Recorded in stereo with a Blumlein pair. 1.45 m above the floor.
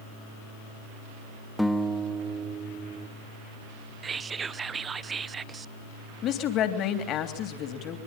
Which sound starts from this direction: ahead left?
A woman speaking, at 6.2 s.